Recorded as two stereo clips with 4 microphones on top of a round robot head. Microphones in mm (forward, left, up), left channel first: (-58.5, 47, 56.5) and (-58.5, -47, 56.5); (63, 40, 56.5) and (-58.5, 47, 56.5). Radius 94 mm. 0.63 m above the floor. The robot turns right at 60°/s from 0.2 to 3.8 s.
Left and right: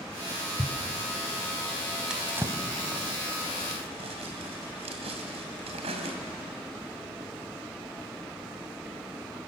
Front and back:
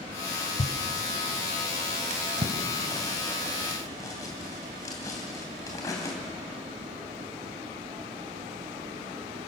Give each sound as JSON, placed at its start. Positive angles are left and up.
{"t": 0.6, "sound": "a thud", "azimuth_deg": 5, "distance_m": 1.3}
{"t": 2.1, "sound": "a drawer", "azimuth_deg": -175, "distance_m": 2.5}